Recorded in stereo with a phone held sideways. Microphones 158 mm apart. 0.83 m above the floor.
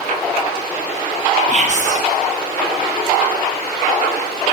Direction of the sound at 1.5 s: 50° right (ahead or behind).